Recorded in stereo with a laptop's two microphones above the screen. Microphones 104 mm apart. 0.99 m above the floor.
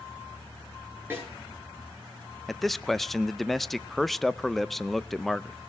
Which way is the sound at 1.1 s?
20° right (ahead or behind).